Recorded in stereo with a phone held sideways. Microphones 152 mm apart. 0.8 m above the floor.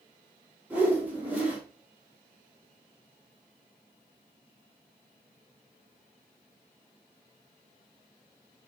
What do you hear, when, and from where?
0.7 s a whoosh: 10° right (ahead or behind), 3.5 m